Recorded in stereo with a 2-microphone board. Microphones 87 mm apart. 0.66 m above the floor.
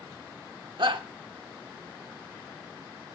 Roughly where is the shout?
Right.